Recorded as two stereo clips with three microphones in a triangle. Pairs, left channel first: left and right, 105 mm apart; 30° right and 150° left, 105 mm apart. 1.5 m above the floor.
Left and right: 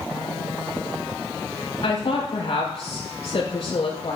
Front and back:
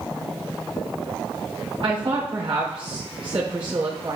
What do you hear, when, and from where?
1.8 s a woman speaking: 115° left, 3 m